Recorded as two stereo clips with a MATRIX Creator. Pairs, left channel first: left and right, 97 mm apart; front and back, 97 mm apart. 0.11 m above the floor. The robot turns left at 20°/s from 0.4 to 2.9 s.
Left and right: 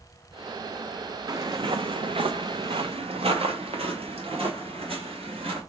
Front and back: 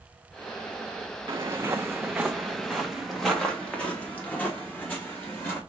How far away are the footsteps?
About 0.7 m.